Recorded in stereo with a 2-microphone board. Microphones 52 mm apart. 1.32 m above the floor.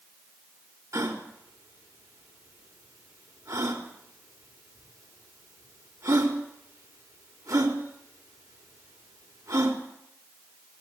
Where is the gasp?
80° right, 4.5 m.